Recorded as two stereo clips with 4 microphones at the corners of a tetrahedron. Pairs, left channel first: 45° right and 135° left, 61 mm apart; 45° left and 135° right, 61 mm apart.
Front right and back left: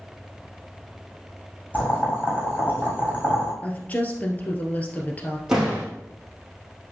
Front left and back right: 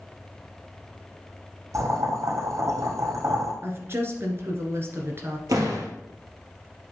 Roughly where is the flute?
No flute in this recording.